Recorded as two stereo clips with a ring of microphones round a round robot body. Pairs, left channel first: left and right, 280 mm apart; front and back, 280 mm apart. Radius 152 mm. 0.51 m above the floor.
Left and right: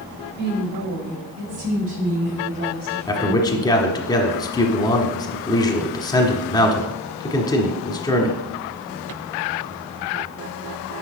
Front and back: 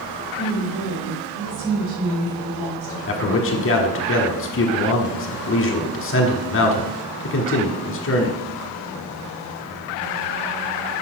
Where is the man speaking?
20° left, 1.3 m.